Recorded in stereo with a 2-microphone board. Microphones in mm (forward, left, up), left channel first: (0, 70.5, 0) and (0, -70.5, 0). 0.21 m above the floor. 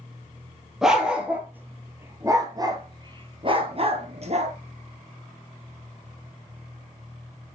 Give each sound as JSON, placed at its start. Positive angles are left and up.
{"t": 0.8, "sound": "a dog barking", "side_deg": -5, "distance_m": 2.5}